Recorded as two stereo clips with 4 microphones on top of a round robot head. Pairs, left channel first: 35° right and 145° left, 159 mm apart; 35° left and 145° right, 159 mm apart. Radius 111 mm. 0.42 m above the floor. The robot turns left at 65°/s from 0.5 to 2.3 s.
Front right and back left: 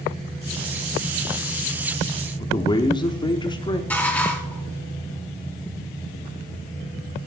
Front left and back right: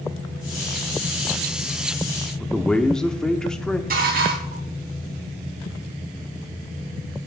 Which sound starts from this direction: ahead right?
A man speaking, at 2.4 s.